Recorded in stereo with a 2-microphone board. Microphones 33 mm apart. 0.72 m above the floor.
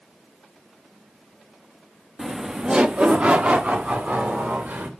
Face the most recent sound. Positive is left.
turn(degrees=-50)  # may be behind; listen again after turning